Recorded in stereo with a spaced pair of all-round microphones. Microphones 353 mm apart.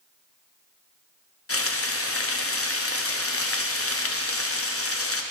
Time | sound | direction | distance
1.5 | frying | 40° left (ahead or behind) | 0.6 m